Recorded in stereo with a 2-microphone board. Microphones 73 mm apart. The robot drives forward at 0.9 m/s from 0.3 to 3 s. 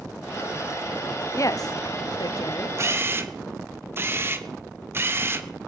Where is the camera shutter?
40° right (ahead or behind), 0.9 m; by 5.5 s 35° right (ahead or behind), 1.1 m.